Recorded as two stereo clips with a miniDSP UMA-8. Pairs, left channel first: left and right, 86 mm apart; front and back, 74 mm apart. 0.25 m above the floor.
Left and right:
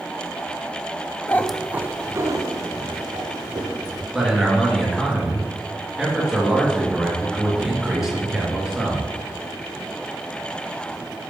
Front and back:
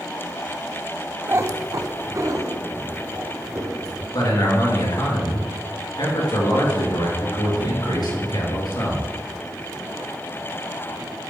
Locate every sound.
1.3 s a cat meowing: 135° left, 0.5 m; by 4.0 s 130° right, 3.5 m
4.1 s a man speaking: 5° right, 3.5 m